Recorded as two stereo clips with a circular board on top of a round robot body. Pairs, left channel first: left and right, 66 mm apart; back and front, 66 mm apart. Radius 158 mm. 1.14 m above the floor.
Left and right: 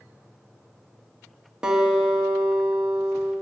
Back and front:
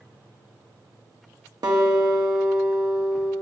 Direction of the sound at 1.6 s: 15° right.